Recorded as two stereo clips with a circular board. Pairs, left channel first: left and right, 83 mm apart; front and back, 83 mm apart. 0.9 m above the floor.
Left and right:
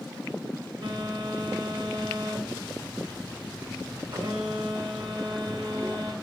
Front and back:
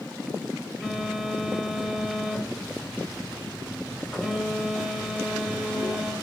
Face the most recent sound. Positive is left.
turn(degrees=-95)